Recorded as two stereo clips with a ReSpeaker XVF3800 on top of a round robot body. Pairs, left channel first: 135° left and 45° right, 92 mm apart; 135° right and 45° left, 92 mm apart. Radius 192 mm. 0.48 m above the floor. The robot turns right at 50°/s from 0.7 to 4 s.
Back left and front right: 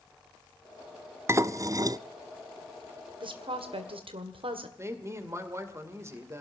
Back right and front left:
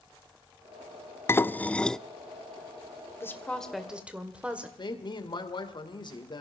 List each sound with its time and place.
1.3 s dishes clattering: 90° right, 0.6 m; by 2.0 s 55° right, 0.6 m
3.2 s a woman speaking: 75° right, 2 m; by 4.7 s 35° right, 2 m
4.8 s a woman speaking: 105° right, 2.5 m